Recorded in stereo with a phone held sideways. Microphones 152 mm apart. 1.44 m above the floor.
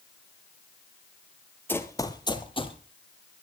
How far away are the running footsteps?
About 1.7 m.